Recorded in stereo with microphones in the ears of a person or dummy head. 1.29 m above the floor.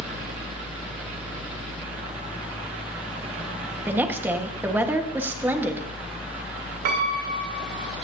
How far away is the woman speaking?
About 1.5 m.